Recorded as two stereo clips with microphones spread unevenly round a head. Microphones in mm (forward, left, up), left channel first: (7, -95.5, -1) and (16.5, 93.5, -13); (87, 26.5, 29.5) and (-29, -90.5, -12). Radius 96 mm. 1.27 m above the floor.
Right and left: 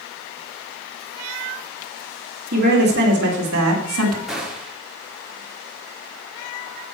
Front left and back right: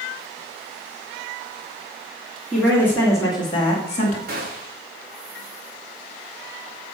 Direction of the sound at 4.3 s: 175° left.